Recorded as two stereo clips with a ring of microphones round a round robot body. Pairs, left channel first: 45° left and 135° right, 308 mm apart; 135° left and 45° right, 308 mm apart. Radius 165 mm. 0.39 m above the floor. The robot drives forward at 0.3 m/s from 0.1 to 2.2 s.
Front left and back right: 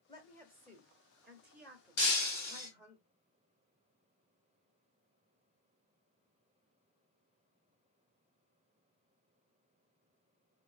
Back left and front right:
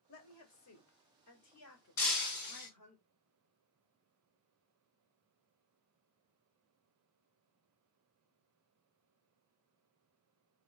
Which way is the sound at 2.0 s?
105° left.